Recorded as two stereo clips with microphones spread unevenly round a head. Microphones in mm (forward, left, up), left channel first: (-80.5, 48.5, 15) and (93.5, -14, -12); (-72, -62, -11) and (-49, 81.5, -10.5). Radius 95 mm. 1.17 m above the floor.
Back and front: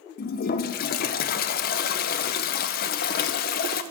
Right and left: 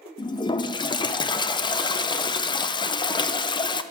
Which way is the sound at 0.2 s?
155° right.